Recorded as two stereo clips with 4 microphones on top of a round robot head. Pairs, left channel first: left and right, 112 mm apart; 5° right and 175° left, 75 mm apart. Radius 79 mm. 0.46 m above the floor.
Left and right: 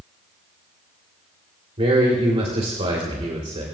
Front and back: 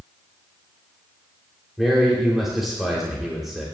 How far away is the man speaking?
About 2.5 m.